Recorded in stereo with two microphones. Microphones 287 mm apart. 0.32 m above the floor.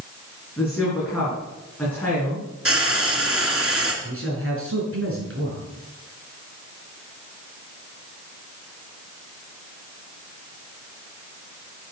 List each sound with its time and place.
0.6 s a woman speaking: 5° left (ahead or behind), 4.5 m
2.6 s frying: 45° right (ahead or behind), 3 m
4.0 s a man speaking: 45° right (ahead or behind), 4.5 m